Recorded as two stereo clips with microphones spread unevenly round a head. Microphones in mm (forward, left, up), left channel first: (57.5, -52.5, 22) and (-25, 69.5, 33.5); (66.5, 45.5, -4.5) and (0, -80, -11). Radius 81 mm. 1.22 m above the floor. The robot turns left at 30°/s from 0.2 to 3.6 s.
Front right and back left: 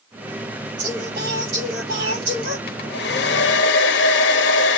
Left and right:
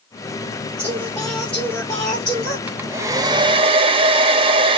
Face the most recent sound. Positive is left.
turn(degrees=-65)